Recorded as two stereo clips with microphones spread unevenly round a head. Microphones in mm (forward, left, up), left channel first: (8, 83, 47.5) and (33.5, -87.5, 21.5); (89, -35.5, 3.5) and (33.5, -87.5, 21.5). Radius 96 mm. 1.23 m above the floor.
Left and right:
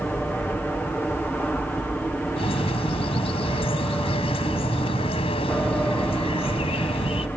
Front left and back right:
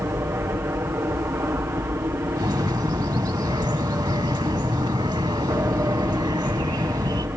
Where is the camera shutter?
I don't hear a camera shutter.